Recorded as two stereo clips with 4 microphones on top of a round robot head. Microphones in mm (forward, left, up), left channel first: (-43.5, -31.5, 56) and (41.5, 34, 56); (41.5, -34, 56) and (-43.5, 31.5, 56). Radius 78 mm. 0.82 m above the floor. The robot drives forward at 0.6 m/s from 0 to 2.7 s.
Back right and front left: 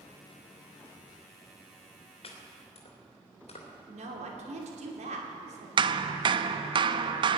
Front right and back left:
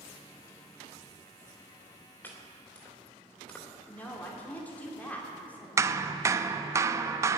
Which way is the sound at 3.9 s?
40° left.